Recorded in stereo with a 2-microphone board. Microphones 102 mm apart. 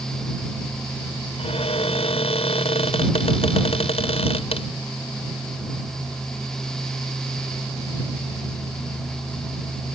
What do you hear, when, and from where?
1.4 s a cupboard door: 75° left (ahead or behind)